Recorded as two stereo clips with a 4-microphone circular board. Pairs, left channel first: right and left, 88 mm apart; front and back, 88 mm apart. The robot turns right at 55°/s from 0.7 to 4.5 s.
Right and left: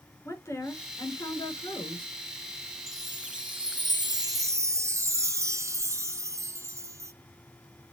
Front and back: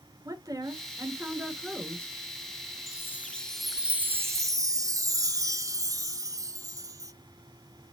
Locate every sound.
0.2 s a woman speaking: 145° right, 3 m; by 2.2 s 65° right, 3 m
2.9 s a chime: 50° left, 0.7 m; by 7.1 s 140° left, 0.7 m